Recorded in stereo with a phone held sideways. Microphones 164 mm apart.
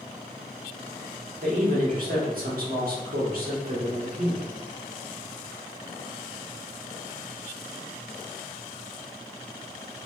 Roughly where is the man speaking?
Right.